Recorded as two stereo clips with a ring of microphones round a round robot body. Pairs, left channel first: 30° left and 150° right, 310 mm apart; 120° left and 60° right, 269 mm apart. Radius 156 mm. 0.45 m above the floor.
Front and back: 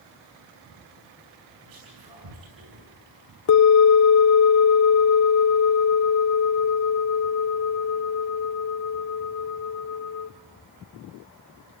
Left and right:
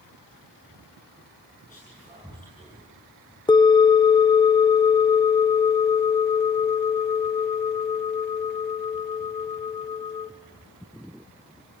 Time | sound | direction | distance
1.7 | whispering | 170° right | 7.5 m
3.5 | a bell | 50° left | 0.9 m